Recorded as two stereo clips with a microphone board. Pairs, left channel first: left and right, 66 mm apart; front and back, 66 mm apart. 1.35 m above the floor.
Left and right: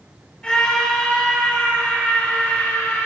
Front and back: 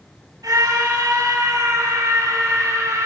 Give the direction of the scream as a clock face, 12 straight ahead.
6 o'clock.